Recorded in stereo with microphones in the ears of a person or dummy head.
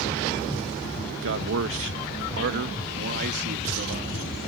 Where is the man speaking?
65° right (ahead or behind); by 4.2 s 50° right (ahead or behind).